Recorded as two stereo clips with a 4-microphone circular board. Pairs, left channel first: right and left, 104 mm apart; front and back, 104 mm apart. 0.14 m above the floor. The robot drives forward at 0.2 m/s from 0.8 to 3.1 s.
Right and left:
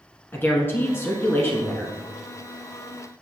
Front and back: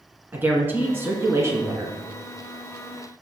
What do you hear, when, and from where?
0.3 s a woman speaking: 135° right, 1.1 m; by 2.0 s 145° right, 1.2 m